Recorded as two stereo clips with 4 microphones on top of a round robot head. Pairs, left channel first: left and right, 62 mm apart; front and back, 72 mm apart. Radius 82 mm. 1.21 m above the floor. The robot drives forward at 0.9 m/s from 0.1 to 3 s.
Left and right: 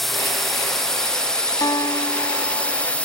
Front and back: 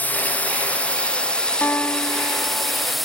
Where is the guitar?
65° left; by 2.8 s 85° left.